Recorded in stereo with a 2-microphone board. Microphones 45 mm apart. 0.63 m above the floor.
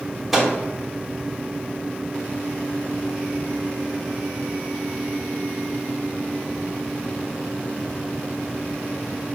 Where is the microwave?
5° right (ahead or behind), 1.1 m.